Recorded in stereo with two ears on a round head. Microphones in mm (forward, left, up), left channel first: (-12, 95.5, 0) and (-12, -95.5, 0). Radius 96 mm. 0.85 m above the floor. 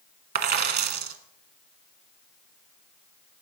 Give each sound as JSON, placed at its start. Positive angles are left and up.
{"t": 0.3, "sound": "a dropped coin", "side_deg": -45, "distance_m": 1.0}